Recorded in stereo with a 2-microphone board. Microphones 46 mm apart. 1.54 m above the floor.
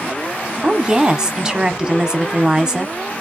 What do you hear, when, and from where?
0.6 s a woman speaking: 20° right (ahead or behind), 0.7 m